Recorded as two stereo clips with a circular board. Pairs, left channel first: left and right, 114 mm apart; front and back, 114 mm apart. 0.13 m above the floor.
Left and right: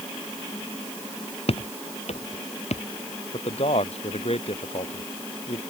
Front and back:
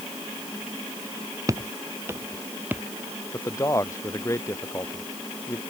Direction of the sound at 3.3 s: 65° left.